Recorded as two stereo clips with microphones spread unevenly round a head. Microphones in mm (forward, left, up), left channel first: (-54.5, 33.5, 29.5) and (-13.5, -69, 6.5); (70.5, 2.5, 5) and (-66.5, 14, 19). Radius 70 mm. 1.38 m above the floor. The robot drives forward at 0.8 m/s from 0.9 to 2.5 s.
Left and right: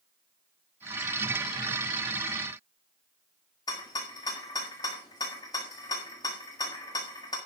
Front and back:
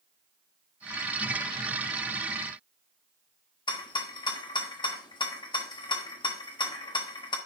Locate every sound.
3.7 s a rattle: 55° left, 1.6 m